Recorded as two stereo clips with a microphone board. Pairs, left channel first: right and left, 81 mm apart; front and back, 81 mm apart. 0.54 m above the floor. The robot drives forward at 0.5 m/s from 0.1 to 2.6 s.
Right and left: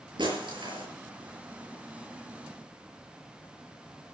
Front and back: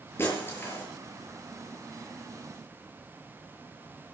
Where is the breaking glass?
65° left, 7 m.